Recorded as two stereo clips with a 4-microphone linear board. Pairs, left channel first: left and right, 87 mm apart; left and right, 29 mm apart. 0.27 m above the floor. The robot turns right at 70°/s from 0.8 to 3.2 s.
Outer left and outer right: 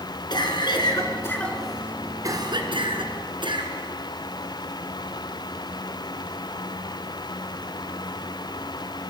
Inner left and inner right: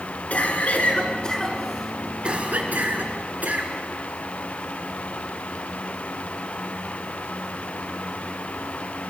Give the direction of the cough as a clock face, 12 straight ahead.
8 o'clock.